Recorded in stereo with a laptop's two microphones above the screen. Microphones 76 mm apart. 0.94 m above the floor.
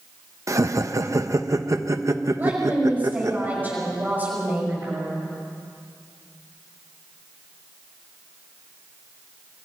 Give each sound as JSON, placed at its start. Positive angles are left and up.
{"t": 0.5, "sound": "laughter", "side_deg": -45, "distance_m": 1.0}
{"t": 2.4, "sound": "a woman speaking", "side_deg": -20, "distance_m": 5.5}